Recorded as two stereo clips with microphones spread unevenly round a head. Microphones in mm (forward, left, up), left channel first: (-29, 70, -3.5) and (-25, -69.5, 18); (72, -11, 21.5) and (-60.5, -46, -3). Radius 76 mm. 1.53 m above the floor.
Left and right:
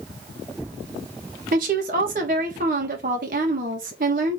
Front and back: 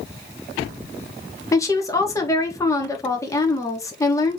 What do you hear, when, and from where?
1.5 s a woman speaking: 50° right, 1.6 m